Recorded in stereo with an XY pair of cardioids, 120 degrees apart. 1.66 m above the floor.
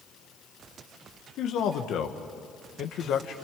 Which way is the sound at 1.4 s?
65° left.